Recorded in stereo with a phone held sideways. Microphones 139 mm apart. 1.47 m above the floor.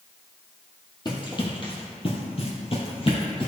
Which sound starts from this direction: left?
Running footsteps, at 1.1 s.